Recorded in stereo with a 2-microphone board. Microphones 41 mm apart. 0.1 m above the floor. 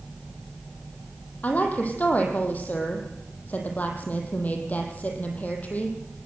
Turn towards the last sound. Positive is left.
turn(degrees=45)  # may be behind; listen again after turning